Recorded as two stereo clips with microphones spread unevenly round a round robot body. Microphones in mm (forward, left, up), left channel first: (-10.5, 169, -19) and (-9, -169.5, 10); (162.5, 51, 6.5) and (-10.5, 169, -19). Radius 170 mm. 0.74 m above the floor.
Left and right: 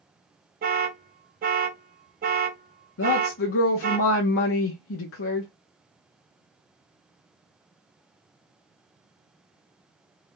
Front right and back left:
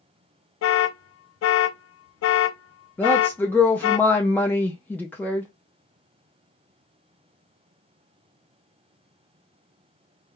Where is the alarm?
25° right, 0.5 m.